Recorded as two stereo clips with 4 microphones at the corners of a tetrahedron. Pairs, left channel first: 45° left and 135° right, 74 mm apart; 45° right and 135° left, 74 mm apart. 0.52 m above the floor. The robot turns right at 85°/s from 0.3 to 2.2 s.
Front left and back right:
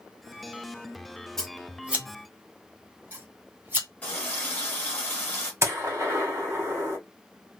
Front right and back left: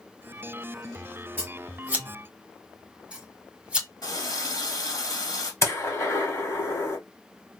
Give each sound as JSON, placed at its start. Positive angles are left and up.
{"t": 1.4, "sound": "scissors", "azimuth_deg": 125, "distance_m": 1.0}
{"t": 4.0, "sound": "a running tap", "azimuth_deg": -25, "distance_m": 1.5}
{"t": 5.6, "sound": "a gunshot", "azimuth_deg": -85, "distance_m": 1.6}